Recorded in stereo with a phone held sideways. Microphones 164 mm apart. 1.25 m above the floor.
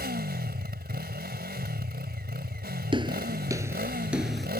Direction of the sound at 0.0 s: 80° right.